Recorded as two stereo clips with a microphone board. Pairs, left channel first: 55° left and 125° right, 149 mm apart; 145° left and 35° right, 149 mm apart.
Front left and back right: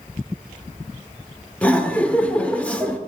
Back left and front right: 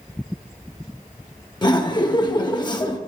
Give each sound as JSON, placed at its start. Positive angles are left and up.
{"t": 1.6, "sound": "laughter", "azimuth_deg": 130, "distance_m": 0.8}